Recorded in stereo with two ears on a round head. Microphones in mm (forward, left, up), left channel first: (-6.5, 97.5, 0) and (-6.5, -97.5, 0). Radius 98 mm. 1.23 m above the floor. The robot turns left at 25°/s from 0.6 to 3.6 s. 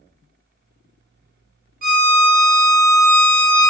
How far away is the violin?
About 0.7 m.